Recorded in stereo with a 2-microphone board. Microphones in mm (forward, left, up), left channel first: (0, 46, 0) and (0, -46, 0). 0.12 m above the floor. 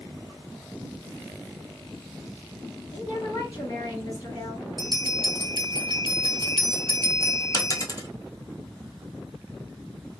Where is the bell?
55° right (ahead or behind), 0.8 m.